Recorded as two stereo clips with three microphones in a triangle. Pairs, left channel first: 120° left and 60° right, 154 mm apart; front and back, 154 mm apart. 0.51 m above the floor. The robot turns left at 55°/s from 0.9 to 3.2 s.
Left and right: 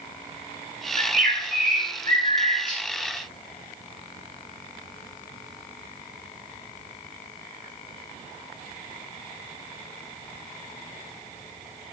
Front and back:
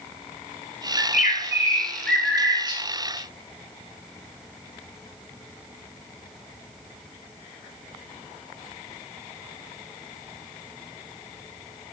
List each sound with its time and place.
1.0 s a bird: 25° right, 0.6 m; by 2.8 s 125° right, 0.6 m